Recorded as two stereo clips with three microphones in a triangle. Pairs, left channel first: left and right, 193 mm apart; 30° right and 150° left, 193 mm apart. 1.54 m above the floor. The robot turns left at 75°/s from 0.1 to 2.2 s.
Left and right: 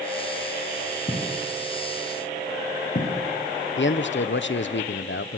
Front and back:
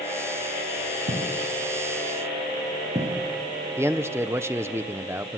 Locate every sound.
1.1 s footsteps: 155° left, 7 m; by 3.1 s 95° left, 6.5 m
3.8 s a man speaking: 75° left, 1.0 m